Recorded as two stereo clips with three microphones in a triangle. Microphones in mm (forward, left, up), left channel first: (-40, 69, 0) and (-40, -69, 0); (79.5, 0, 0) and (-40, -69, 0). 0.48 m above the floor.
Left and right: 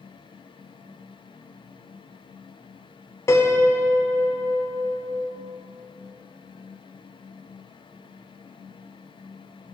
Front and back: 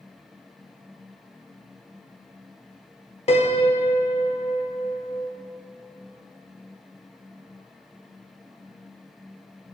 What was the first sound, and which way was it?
A piano, 30° left.